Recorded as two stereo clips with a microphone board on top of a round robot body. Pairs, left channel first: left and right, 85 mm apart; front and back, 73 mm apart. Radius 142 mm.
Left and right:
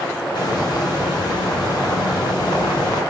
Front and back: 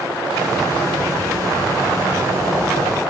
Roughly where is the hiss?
Behind left.